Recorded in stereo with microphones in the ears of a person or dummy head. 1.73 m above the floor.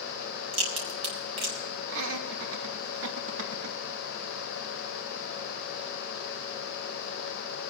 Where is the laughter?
80° right, 2.5 m.